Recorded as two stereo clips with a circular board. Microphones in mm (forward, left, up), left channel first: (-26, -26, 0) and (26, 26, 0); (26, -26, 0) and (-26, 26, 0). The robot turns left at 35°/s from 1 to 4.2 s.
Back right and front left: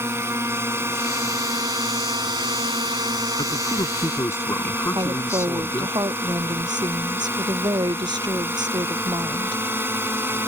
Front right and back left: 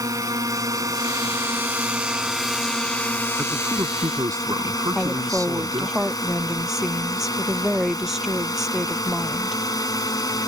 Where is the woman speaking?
50° left.